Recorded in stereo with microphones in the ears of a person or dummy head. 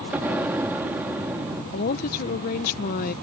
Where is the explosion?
10° right (ahead or behind).